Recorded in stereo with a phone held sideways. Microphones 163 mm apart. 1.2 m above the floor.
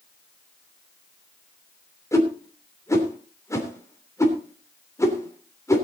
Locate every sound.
2.1 s a whoosh: 20° left (ahead or behind), 3 m